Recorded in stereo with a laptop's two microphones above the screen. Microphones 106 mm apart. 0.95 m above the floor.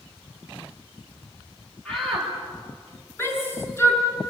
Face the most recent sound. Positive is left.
turn(degrees=25)  # may be behind; listen again after turning